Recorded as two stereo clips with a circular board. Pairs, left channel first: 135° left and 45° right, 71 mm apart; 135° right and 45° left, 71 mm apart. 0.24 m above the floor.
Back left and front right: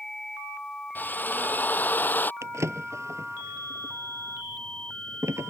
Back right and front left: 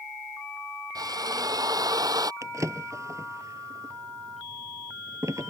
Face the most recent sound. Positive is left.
turn(degrees=0)